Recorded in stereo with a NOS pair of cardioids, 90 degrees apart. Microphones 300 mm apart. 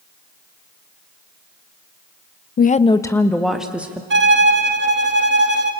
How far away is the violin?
About 2 m.